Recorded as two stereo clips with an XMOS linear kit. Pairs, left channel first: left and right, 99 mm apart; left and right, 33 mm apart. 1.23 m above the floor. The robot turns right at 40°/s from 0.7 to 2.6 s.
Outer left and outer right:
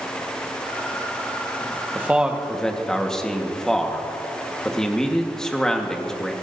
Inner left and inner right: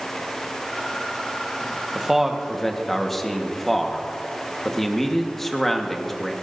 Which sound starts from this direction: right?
A man speaking, at 1.9 s.